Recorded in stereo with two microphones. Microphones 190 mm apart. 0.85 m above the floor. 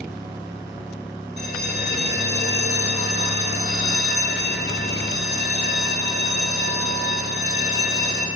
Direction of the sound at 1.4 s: 60° left (ahead or behind).